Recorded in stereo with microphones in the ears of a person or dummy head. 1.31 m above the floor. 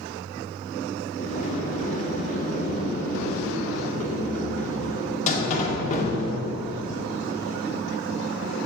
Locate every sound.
1.2 s a sliding door: 40° left (ahead or behind), 1.8 m